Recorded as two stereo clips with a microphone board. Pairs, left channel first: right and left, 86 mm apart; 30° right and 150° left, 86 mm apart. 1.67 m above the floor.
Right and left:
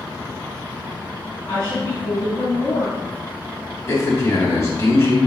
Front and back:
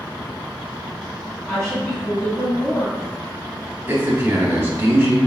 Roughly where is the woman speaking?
Behind right.